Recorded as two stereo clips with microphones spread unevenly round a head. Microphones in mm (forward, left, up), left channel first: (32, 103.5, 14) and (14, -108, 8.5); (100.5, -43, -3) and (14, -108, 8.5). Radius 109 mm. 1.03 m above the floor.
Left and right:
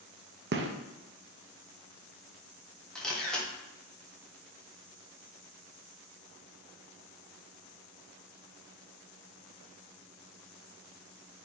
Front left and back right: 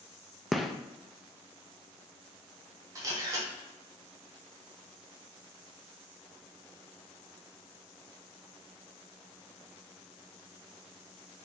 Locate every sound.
0.5 s a gunshot: 55° right, 0.5 m
3.0 s a camera shutter: 170° left, 0.8 m